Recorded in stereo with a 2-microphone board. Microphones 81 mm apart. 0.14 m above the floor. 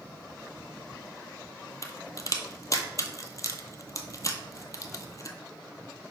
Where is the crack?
40° left (ahead or behind), 0.9 m.